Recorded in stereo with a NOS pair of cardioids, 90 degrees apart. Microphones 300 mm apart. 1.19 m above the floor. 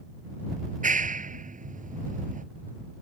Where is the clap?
25° right.